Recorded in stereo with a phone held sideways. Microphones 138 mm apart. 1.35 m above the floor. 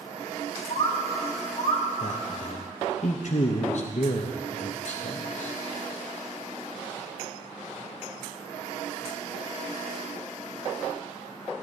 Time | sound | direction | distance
0.7 | a bird | 70° left (ahead or behind) | 1.4 m
2.0 | a man speaking | 60° left (ahead or behind) | 0.7 m